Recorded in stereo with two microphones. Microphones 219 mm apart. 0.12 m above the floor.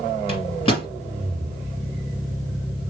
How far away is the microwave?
About 1.3 m.